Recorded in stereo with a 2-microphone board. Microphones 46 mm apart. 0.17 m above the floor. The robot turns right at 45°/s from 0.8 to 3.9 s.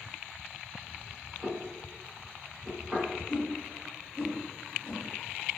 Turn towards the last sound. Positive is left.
turn(degrees=25)  # may be behind; listen again after turning